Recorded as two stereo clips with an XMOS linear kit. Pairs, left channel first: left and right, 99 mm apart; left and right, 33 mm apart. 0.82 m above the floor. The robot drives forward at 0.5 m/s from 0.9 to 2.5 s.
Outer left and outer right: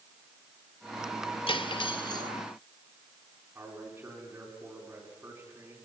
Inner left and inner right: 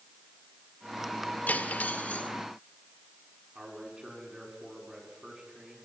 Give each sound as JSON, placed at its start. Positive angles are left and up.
{"t": 1.5, "sound": "cutlery clinking", "side_deg": 60, "distance_m": 1.0}
{"t": 3.5, "sound": "a man speaking", "side_deg": -25, "distance_m": 8.0}